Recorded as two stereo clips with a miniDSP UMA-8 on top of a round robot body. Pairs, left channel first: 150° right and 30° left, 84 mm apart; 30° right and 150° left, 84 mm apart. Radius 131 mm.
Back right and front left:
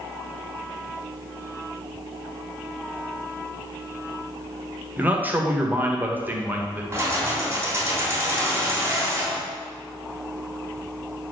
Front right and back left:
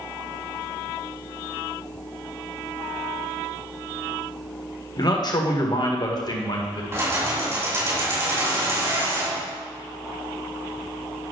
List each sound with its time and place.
5.0 s a man speaking: 35° right, 1.9 m
6.9 s keys jangling: 90° left, 3 m